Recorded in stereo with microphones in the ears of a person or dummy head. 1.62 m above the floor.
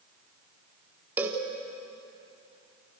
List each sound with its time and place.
1.2 s a cowbell: 15° right (ahead or behind), 2.5 m